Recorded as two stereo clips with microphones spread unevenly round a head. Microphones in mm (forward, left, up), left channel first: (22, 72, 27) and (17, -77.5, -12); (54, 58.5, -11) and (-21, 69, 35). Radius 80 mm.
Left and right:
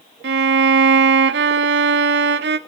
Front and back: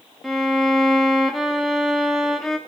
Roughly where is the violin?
Right.